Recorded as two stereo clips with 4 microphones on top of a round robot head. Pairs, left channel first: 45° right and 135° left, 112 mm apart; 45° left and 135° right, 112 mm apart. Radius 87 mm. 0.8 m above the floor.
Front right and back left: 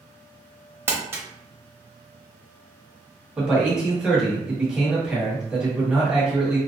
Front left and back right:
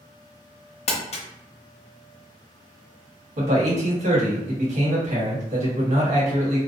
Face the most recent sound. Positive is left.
turn(degrees=-145)